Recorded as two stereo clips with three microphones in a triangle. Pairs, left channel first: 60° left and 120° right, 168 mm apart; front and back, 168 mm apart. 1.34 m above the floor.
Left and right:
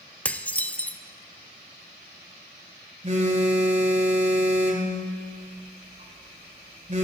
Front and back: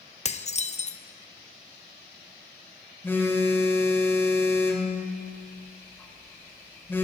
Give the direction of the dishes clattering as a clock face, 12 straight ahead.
1 o'clock.